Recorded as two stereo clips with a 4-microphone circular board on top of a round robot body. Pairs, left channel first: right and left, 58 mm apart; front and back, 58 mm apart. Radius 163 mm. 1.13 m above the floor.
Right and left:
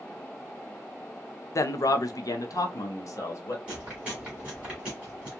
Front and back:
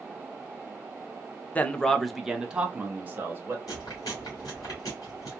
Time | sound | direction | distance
1.6 | a man speaking | 65° right | 0.6 m
3.7 | chewing | 15° left | 1.1 m